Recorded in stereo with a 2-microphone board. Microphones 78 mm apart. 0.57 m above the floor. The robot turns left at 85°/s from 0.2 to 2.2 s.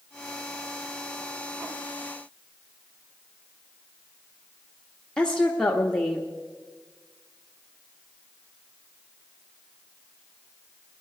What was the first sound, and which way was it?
A woman speaking, 10° left (ahead or behind).